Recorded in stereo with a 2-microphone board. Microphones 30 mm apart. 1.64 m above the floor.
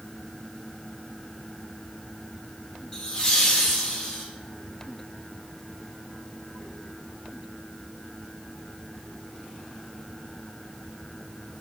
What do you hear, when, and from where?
2.9 s laughter: 20° left (ahead or behind), 2.5 m